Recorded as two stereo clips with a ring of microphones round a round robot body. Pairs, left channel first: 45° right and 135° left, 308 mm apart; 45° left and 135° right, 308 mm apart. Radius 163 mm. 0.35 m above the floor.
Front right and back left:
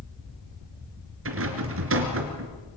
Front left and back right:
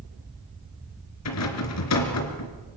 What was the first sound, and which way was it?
A rattle, 85° left.